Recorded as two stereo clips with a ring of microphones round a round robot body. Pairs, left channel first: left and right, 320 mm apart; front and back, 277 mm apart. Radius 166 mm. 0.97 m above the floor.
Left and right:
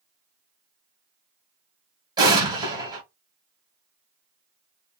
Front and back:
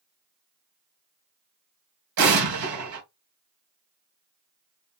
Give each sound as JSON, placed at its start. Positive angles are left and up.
{"t": 2.2, "sound": "an explosion", "azimuth_deg": -165, "distance_m": 1.3}